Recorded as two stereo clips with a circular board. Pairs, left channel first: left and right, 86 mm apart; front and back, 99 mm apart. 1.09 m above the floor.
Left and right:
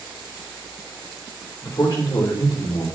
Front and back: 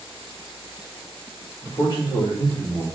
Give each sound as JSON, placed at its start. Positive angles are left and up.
{"t": 1.6, "sound": "a man speaking", "azimuth_deg": 40, "distance_m": 3.5}